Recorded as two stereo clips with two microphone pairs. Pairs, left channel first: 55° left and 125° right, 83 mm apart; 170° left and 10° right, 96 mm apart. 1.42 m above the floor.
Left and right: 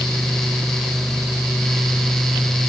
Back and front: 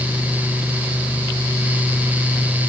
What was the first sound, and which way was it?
Only background noise.